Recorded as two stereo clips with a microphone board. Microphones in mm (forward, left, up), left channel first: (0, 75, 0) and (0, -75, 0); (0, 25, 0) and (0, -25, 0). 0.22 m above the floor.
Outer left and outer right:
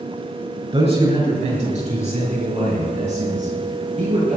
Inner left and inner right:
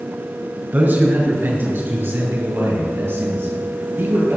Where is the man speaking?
45° right (ahead or behind), 3 m; by 4.4 s 60° right (ahead or behind), 7 m.